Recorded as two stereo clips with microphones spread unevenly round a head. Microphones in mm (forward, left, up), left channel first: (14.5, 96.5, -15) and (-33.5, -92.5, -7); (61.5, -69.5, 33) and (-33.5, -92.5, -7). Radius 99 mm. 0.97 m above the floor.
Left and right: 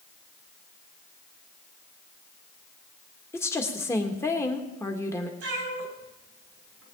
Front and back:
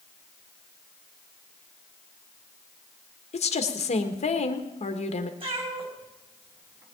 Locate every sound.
3.3 s a woman speaking: straight ahead, 1.4 m
5.4 s a cat meowing: 135° right, 3.5 m